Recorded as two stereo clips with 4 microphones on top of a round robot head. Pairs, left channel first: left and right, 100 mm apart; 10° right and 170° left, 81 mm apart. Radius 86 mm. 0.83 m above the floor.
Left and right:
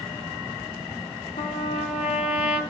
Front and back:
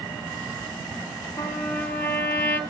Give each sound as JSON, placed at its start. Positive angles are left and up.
{"t": 1.4, "sound": "a trumpet", "azimuth_deg": 55, "distance_m": 2.5}